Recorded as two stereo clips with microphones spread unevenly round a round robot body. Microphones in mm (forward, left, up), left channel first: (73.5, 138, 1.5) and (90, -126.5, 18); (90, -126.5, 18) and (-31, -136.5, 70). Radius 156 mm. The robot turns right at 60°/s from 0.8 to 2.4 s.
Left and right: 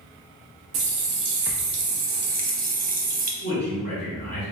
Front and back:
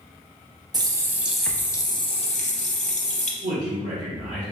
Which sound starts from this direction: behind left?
A man speaking, at 3.4 s.